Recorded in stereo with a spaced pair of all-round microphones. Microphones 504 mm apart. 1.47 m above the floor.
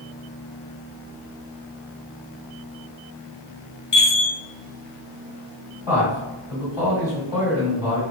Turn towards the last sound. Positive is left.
turn(degrees=55)  # may be behind; listen again after turning